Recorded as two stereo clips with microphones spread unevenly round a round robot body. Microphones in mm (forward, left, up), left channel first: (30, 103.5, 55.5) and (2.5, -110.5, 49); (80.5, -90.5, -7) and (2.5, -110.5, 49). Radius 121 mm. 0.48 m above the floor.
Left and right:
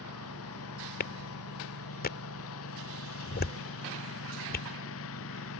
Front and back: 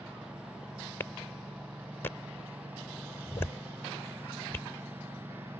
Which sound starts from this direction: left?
A lawn mower, at 0.0 s.